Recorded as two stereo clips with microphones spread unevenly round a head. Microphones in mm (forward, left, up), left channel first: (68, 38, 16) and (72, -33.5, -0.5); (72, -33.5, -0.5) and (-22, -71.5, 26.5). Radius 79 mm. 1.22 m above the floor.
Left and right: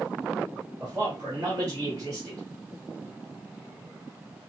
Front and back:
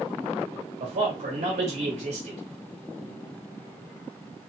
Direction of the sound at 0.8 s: 160° right.